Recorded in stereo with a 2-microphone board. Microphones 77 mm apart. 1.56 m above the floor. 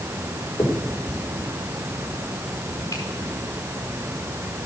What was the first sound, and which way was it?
A finger snap, 45° left (ahead or behind).